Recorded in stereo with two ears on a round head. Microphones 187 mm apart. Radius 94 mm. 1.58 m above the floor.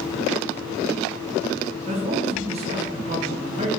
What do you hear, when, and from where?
1.9 s a man speaking: 30° right (ahead or behind), 1.4 m